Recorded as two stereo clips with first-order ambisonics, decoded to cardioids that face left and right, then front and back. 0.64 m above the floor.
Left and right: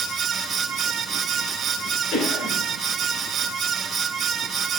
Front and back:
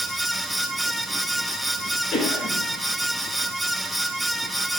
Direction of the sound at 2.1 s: 50° left.